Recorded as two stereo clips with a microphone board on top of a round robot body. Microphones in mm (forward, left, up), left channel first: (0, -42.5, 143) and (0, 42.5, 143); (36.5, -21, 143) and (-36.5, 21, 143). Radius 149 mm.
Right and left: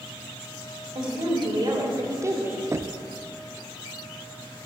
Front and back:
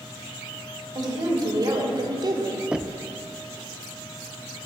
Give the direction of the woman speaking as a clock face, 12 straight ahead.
8 o'clock.